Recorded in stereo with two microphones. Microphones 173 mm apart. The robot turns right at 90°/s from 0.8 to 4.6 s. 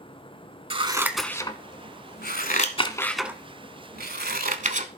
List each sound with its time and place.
0.7 s scissors: 30° right (ahead or behind), 0.9 m; by 4.9 s 45° right (ahead or behind), 0.9 m